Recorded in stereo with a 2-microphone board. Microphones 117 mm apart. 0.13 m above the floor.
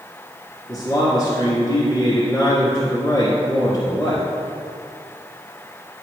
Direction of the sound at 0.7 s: 25° left (ahead or behind).